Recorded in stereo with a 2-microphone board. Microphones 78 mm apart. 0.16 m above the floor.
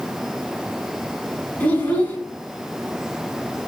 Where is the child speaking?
20° left (ahead or behind), 0.9 m.